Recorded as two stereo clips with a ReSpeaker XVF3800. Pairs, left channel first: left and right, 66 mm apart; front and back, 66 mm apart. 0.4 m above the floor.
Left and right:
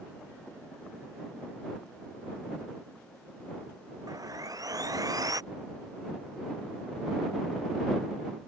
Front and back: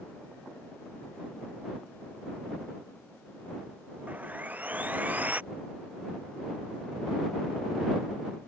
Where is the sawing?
115° right.